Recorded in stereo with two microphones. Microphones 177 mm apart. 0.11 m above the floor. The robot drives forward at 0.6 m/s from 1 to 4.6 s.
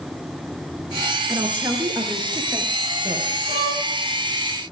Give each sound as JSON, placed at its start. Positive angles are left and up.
{"t": 1.3, "sound": "a woman speaking", "side_deg": -15, "distance_m": 2.0}
{"t": 3.5, "sound": "a violin", "side_deg": 65, "distance_m": 3.0}